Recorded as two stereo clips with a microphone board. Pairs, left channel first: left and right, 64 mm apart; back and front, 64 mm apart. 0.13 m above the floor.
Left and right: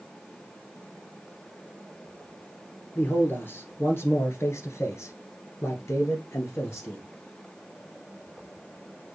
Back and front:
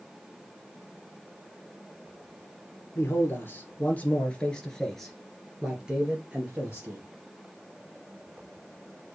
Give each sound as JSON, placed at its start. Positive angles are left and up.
{"t": 3.0, "sound": "a man speaking", "azimuth_deg": 140, "distance_m": 2.5}